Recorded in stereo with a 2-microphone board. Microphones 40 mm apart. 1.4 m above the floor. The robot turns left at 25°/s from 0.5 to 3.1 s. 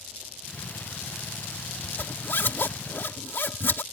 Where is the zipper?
55° left (ahead or behind); by 3.8 s 65° left (ahead or behind).